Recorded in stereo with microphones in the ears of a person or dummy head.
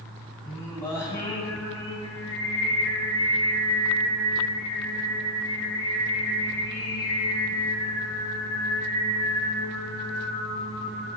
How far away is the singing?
About 2.5 m.